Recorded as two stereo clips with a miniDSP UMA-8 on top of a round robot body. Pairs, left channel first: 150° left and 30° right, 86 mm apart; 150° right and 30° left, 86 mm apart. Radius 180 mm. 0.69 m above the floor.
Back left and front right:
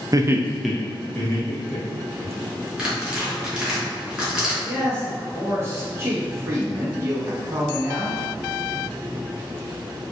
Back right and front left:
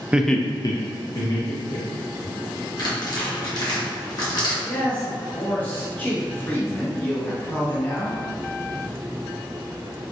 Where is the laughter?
40° right, 0.5 m; by 2.3 s 150° right, 1.9 m.